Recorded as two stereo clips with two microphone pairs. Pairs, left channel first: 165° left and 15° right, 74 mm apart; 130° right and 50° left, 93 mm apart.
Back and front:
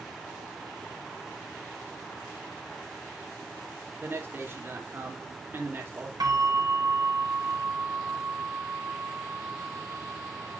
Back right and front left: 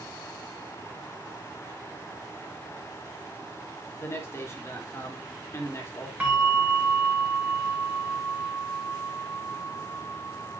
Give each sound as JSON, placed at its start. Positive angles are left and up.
{"t": 4.0, "sound": "a man speaking", "azimuth_deg": -75, "distance_m": 3.0}
{"t": 6.2, "sound": "a bell", "azimuth_deg": -25, "distance_m": 4.0}